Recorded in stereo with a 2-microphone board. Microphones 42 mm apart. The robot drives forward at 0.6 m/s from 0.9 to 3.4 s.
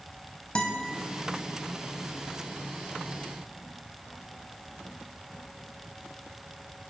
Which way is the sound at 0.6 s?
30° left (ahead or behind).